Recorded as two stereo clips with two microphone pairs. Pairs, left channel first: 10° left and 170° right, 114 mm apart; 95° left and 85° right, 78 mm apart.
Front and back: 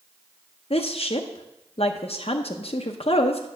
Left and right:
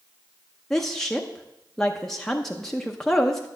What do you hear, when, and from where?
0.7 s a woman speaking: 15° left, 0.7 m